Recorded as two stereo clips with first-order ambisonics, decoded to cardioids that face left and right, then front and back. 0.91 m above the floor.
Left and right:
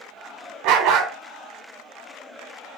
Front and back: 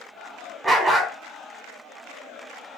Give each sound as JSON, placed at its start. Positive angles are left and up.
{"t": 0.6, "sound": "a dog barking", "azimuth_deg": -95, "distance_m": 1.1}